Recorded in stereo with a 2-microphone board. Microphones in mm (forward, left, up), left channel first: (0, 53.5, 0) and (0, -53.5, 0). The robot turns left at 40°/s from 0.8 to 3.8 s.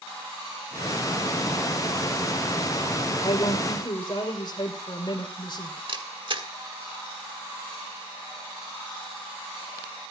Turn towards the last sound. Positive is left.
turn(degrees=-50)  # may be behind; listen again after turning